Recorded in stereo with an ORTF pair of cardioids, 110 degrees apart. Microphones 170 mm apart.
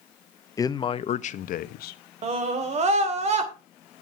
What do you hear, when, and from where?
0.6 s a man speaking: 20° left, 0.9 m; by 2.0 s 75° left, 1.1 m
2.2 s a scream: 45° right, 3 m